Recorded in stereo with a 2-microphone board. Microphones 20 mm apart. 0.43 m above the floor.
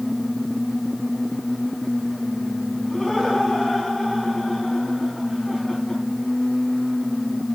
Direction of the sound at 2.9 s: 20° left (ahead or behind).